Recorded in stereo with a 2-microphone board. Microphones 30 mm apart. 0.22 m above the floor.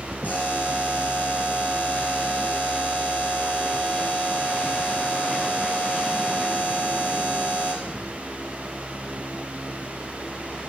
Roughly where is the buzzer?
Left.